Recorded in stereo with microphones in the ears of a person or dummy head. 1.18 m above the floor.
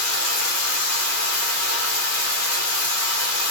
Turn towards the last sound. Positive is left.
turn(degrees=80)